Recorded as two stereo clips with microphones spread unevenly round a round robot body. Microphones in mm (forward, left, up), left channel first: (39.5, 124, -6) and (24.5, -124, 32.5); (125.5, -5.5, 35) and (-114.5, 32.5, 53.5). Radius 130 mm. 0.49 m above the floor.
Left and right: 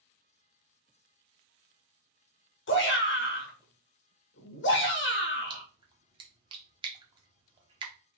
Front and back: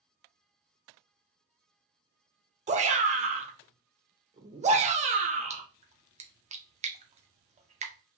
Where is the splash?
160° right, 1.1 m.